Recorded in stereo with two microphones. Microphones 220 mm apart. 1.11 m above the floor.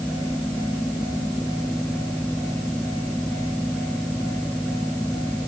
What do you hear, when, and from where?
Only background noise.